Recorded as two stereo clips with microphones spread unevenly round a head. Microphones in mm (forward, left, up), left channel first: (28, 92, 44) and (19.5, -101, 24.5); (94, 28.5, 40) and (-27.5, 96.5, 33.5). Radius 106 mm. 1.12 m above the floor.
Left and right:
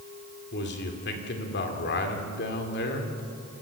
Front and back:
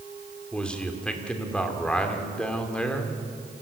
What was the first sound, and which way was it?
A man speaking, 55° left.